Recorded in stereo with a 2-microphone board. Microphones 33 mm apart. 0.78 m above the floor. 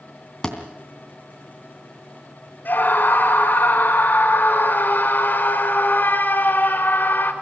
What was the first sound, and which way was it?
A thud, 15° left (ahead or behind).